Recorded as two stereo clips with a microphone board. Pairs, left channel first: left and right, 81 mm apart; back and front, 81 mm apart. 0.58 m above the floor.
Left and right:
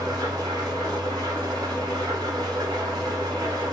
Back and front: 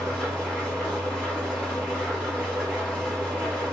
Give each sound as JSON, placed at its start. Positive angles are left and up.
{"t": 0.0, "sound": "an engine running", "azimuth_deg": -105, "distance_m": 1.5}